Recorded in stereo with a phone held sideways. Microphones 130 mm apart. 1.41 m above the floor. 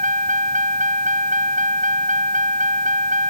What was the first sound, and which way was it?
A vehicle, 75° right (ahead or behind).